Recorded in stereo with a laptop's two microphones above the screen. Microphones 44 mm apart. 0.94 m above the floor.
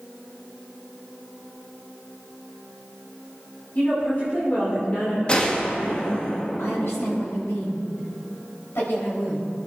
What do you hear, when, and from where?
3.8 s a woman speaking: 40° left (ahead or behind), 3 m
5.3 s a gunshot: 25° left (ahead or behind), 0.8 m
6.6 s a woman speaking: 75° left (ahead or behind), 5 m